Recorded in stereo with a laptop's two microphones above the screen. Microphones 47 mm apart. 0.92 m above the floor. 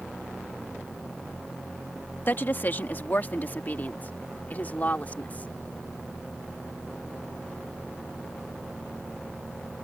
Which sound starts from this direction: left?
A woman speaking, at 2.3 s.